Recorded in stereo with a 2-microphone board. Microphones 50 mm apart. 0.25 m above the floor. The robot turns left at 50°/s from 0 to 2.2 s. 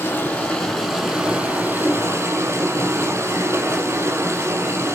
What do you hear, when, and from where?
0.0 s running water: 40° left, 6.5 m; by 5.0 s 70° right, 6.5 m